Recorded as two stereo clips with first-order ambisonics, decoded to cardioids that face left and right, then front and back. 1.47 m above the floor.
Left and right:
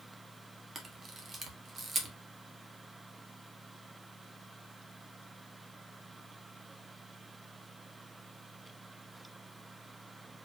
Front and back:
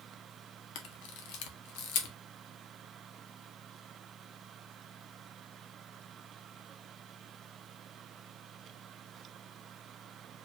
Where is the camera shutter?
15° right, 0.9 m.